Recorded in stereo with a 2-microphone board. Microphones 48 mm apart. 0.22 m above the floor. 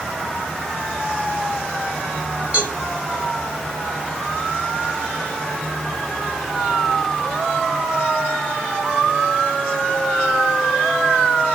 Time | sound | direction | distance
2.5 | a cowbell | 20° right (ahead or behind) | 1.7 m